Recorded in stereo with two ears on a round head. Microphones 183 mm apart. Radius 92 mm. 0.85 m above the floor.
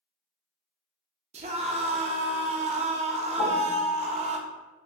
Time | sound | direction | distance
1.3 | a scream | 30° right (ahead or behind) | 0.7 m
3.4 | a piano | 25° left (ahead or behind) | 0.5 m